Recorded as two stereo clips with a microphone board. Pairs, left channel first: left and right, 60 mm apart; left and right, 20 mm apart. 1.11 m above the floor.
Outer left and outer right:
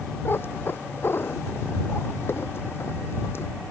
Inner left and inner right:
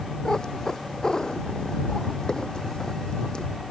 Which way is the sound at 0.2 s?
35° left (ahead or behind).